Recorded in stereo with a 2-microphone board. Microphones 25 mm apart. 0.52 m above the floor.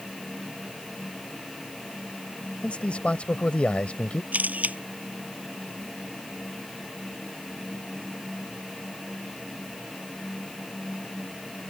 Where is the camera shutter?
85° right.